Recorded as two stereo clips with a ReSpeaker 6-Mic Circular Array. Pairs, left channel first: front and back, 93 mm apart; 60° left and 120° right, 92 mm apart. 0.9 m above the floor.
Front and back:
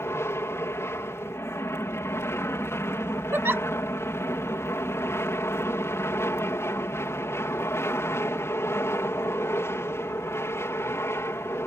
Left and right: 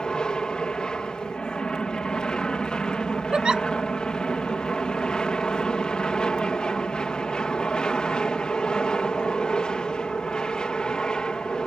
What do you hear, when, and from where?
0.0 s an aircraft: 10° right
3.3 s a giggle: 170° left